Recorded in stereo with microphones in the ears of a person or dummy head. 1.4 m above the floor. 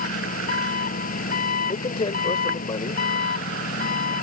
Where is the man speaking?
25° left (ahead or behind).